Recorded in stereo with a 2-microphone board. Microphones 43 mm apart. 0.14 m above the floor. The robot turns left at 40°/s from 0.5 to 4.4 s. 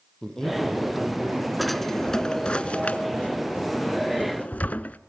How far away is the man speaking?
About 4.5 m.